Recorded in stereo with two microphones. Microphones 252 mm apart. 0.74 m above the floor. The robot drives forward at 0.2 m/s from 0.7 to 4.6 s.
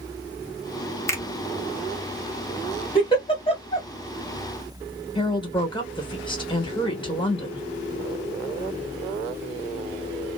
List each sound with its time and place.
1.1 s a finger snap: 10° left (ahead or behind), 0.7 m
3.0 s a giggle: 20° left (ahead or behind), 1.2 m
5.2 s a woman speaking: 20° left (ahead or behind), 1.1 m